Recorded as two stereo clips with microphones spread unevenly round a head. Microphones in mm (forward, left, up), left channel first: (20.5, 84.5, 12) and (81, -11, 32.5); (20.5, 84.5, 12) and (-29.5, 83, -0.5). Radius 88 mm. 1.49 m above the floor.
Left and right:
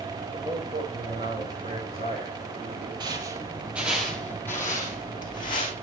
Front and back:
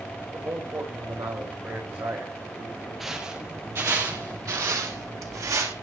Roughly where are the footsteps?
Right.